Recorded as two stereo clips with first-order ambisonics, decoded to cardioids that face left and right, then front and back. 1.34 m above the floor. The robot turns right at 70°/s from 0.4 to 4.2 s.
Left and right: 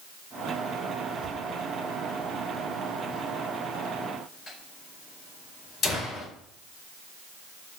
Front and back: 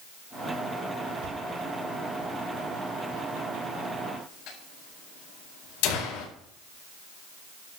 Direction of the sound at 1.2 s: 175° left.